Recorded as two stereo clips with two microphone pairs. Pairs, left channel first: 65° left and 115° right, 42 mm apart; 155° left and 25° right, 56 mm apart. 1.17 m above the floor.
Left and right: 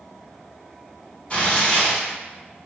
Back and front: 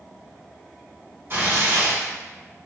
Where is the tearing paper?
15° left, 1.3 m.